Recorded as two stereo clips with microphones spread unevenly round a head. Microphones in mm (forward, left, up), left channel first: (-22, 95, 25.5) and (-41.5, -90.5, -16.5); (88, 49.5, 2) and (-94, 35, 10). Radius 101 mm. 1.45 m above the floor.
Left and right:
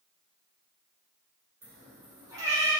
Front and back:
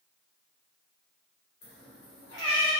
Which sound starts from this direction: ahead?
A cat meowing, at 1.6 s.